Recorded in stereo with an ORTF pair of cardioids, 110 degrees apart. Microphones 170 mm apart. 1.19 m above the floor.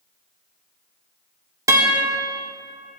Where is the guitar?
20° right, 1.7 m.